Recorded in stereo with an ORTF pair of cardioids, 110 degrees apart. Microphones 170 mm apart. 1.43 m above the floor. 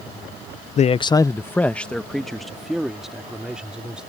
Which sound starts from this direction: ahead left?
A man speaking, at 0.8 s.